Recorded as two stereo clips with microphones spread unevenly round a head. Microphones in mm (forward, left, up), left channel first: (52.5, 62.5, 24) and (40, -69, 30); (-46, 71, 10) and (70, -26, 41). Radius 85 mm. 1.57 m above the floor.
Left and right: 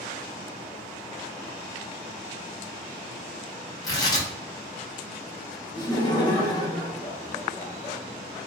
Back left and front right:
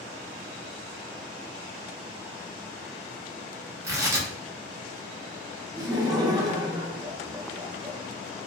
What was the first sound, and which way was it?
Tearing paper, 20° left.